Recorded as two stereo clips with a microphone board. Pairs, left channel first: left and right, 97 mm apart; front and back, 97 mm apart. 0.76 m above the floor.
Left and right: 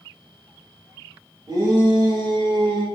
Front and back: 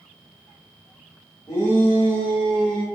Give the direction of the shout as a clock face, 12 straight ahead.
2 o'clock.